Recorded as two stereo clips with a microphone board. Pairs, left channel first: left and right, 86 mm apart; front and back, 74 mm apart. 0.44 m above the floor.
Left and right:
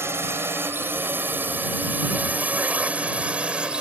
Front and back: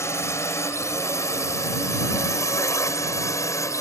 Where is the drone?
35° right; by 3.8 s 15° right.